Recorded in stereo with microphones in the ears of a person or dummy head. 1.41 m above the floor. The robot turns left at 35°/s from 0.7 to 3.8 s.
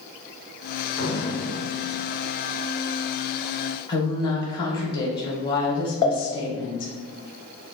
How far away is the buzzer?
No buzzer in this recording.